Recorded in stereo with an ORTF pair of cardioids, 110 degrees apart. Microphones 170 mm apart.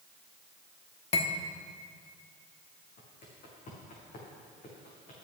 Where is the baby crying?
No baby crying in this recording.